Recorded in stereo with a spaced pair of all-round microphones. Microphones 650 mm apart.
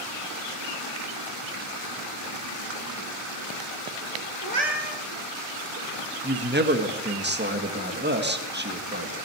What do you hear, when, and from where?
4.4 s a cat meowing: 65° right (ahead or behind), 3 m
6.2 s a man speaking: 15° right (ahead or behind), 1.8 m